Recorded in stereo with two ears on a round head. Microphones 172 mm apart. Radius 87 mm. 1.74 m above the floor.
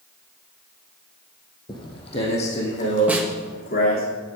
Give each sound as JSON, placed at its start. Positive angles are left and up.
{"t": 1.7, "sound": "footsteps", "side_deg": 25, "distance_m": 3.0}
{"t": 3.1, "sound": "a snare drum", "side_deg": -10, "distance_m": 2.0}